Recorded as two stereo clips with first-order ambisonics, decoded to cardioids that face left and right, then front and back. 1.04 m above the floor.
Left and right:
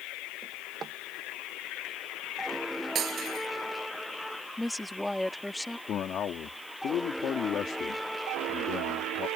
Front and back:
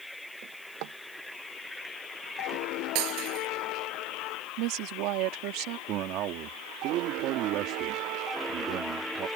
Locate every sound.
0.4 s a drawer: 155° right
3.0 s breaking glass: 150° right
4.6 s a woman speaking: 175° left
5.9 s a man speaking: 145° left